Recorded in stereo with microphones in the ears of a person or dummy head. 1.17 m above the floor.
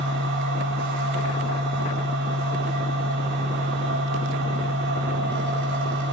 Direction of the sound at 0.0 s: 65° right (ahead or behind).